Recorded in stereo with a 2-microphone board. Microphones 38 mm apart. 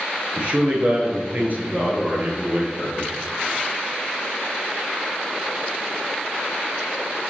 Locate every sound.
0.4 s a man speaking: 35° right (ahead or behind), 1.4 m; by 3.1 s 50° right (ahead or behind), 2 m